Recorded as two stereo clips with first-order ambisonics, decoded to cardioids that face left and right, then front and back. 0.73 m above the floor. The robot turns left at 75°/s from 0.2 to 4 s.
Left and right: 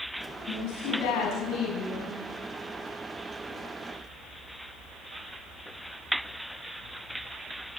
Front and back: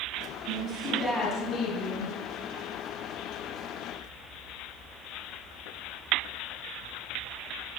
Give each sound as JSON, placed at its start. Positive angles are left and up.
{"t": 0.5, "sound": "a woman speaking", "azimuth_deg": 140, "distance_m": 5.5}